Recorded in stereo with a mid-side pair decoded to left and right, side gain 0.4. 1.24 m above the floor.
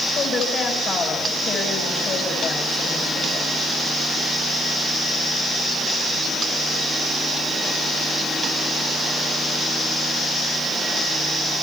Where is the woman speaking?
70° left, 7 m.